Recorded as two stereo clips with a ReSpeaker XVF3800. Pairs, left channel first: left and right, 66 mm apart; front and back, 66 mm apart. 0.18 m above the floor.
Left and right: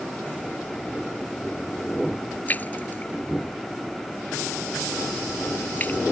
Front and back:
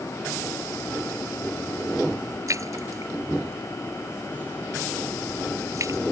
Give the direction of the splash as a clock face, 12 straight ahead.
7 o'clock.